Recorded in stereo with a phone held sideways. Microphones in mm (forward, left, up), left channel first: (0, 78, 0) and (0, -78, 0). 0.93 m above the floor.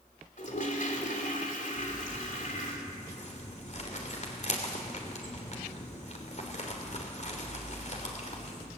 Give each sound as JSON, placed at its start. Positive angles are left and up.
{"t": 0.4, "sound": "a toilet flushing", "side_deg": 60, "distance_m": 3.0}
{"t": 1.8, "sound": "crumpling", "side_deg": 50, "distance_m": 3.0}